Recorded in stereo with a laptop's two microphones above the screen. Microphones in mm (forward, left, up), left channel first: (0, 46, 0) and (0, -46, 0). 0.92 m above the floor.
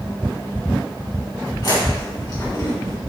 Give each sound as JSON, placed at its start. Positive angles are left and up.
{"t": 1.6, "sound": "chewing", "side_deg": 55, "distance_m": 2.0}